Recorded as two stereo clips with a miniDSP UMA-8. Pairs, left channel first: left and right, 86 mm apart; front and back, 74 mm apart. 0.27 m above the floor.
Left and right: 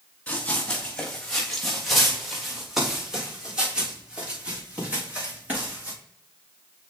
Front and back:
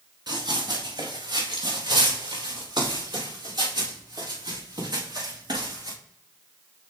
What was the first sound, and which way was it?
Running footsteps, 165° left.